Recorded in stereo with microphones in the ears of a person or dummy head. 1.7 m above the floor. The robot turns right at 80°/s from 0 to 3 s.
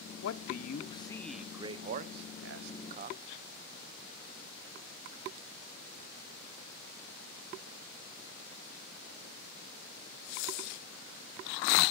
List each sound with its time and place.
0.2 s a man speaking: 70° left (ahead or behind), 0.8 m; by 3.2 s 40° right (ahead or behind), 0.8 m